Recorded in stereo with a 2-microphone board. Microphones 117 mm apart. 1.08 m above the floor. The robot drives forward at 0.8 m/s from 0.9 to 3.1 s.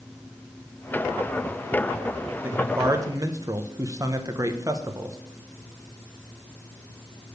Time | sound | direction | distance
2.4 | a man speaking | 20° right (ahead or behind) | 1.2 m